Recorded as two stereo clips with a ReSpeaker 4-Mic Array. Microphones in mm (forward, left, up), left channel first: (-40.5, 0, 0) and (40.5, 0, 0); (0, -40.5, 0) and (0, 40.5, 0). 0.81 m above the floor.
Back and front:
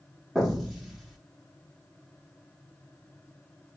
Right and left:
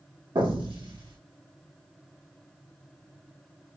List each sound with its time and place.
0.3 s an explosion: 85° left, 1.0 m